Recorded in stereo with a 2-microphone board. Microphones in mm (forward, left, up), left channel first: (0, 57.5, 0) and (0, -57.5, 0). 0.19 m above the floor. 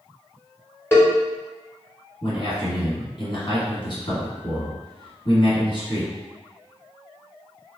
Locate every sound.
0.9 s a cowbell: 20° left (ahead or behind), 1.3 m
2.2 s a man speaking: 50° left (ahead or behind), 1.5 m